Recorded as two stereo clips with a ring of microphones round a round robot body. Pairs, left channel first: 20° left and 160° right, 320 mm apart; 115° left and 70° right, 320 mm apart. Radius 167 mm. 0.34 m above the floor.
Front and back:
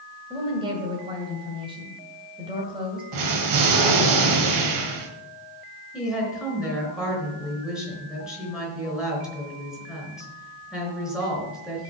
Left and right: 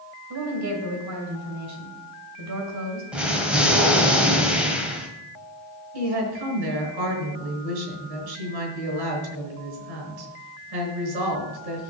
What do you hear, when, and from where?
0.3 s a woman speaking: 85° right, 2.5 m
3.1 s an explosion: 155° right, 1.8 m
5.9 s a woman speaking: 70° right, 4.5 m